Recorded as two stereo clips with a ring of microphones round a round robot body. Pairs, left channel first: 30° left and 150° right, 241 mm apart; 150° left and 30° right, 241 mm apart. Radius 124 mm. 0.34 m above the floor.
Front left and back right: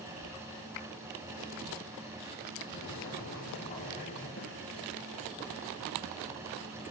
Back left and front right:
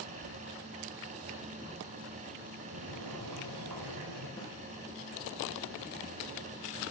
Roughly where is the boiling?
Ahead right.